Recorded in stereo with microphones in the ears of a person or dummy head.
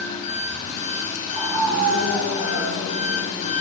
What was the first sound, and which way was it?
An engine running, 40° left (ahead or behind).